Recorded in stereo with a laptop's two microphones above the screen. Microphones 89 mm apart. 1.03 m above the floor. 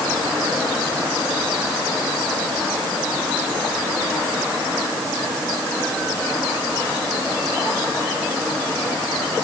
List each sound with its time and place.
Only background noise.